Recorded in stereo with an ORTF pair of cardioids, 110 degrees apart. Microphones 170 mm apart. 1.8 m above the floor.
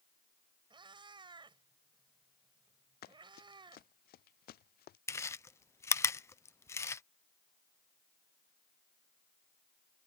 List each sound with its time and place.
0.7 s a cat meowing: 30° right
3.0 s running footsteps: 65° left
5.1 s chewing: 15° left